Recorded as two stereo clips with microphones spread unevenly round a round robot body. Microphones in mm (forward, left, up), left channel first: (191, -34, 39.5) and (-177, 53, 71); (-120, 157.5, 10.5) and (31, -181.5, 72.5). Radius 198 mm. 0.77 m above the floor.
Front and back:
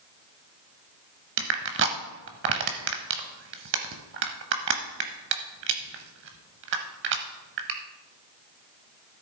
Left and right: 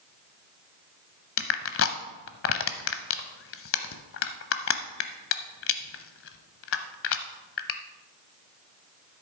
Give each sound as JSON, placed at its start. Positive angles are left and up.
{"t": 1.4, "sound": "crushing", "azimuth_deg": 160, "distance_m": 0.6}